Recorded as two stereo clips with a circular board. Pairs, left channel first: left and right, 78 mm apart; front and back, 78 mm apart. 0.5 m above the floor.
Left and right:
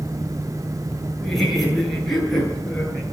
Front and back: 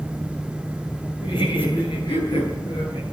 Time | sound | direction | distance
1.2 | laughter | straight ahead | 9.5 m